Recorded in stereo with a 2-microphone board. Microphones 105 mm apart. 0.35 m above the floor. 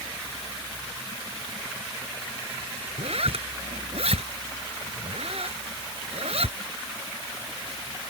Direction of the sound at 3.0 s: 75° right (ahead or behind).